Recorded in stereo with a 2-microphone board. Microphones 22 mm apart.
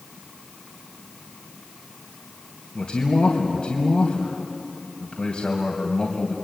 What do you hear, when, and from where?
2.8 s a man speaking: 45° left (ahead or behind), 2.5 m